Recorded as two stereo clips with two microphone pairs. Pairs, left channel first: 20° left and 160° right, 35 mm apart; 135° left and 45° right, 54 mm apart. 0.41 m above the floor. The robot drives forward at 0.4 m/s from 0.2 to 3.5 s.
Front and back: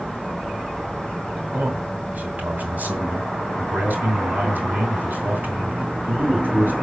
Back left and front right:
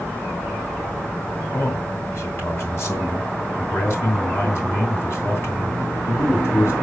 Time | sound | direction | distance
1.5 | a man speaking | 165° left | 2 m